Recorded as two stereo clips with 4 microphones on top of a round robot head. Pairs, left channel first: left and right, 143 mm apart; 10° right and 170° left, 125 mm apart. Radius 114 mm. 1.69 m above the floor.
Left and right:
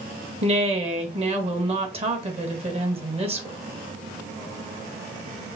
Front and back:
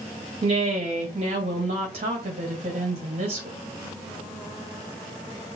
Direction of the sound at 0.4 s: 135° right.